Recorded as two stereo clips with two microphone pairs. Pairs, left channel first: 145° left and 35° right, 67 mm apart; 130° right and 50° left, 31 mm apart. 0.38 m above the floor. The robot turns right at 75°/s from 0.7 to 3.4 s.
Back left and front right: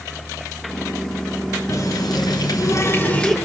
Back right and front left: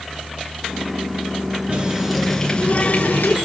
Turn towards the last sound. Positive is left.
turn(degrees=-130)